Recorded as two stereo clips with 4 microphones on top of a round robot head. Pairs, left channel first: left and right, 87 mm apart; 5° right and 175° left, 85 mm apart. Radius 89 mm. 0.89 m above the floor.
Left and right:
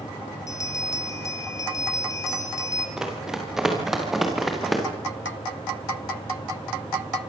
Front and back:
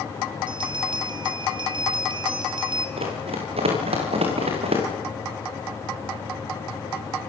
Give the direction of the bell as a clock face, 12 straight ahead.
7 o'clock.